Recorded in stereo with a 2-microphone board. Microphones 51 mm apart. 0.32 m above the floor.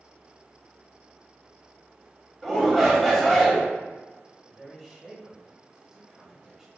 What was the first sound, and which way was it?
A shout, 5° left (ahead or behind).